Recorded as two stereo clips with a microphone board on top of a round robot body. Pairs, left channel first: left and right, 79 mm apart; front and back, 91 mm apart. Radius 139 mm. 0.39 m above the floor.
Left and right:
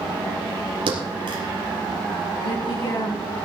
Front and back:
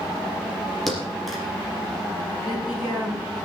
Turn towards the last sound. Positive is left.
turn(degrees=90)